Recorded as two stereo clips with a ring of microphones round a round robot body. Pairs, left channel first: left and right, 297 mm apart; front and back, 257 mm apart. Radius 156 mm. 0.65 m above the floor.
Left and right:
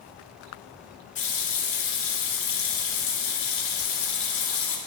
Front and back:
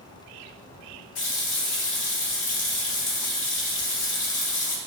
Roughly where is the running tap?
Ahead left.